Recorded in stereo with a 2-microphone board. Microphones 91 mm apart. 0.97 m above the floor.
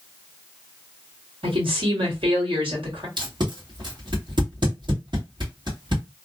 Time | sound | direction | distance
1.4 | a woman speaking | 80° right | 1.5 m
3.2 | tape being pulled | 55° right (ahead or behind) | 1.4 m